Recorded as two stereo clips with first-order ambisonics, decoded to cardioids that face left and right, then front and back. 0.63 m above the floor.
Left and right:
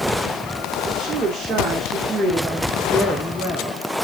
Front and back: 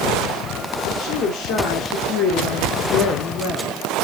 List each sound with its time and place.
0.8 s a woman speaking: 30° right, 2 m; by 3.9 s 45° left, 1.3 m